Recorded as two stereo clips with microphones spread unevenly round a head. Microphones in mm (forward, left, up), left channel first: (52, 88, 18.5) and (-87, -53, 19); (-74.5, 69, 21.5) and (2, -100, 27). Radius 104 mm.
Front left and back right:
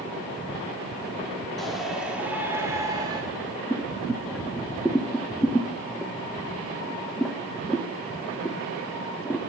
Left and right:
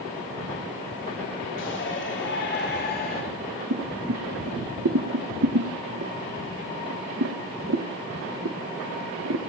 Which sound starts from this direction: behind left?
A shout, at 1.6 s.